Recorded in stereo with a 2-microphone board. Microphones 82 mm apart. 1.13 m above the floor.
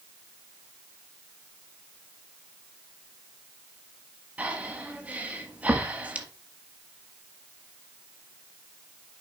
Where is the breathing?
20° right (ahead or behind), 1.4 m.